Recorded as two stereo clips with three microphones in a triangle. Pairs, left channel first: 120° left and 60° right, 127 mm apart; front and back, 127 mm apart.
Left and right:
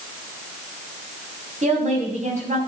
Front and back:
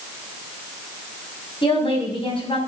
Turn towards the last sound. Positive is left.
turn(degrees=-45)